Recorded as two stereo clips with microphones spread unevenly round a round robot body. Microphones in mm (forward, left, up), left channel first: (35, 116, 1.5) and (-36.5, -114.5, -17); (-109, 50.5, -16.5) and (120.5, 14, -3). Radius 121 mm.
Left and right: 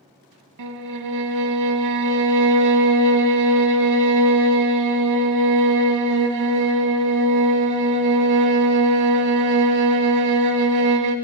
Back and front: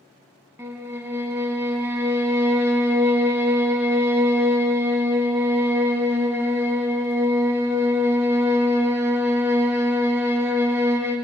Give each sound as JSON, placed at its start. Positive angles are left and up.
{"t": 0.6, "sound": "a violin", "azimuth_deg": -90, "distance_m": 0.8}